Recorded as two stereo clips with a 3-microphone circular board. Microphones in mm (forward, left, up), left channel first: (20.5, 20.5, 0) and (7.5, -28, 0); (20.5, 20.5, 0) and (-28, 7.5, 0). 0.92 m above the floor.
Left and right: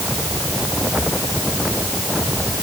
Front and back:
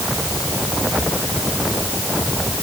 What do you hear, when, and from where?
Only background noise.